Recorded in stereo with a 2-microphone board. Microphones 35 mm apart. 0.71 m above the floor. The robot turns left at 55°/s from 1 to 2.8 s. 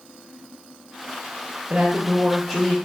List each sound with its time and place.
1.7 s a woman speaking: 125° right, 0.7 m; by 2.8 s 175° left, 0.7 m